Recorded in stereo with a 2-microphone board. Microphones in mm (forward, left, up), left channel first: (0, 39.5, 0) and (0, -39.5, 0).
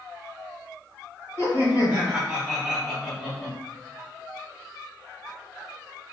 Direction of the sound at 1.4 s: 30° right (ahead or behind).